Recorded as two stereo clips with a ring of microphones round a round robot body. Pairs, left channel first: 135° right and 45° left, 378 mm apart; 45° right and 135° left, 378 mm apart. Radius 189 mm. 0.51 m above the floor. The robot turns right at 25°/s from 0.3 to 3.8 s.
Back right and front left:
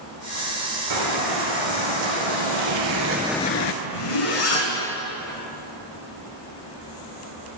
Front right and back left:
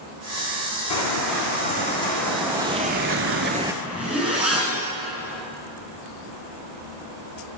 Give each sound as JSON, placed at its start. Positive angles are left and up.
{"t": 0.9, "sound": "footsteps", "azimuth_deg": 0, "distance_m": 3.0}
{"t": 3.8, "sound": "a zipper", "azimuth_deg": -140, "distance_m": 3.0}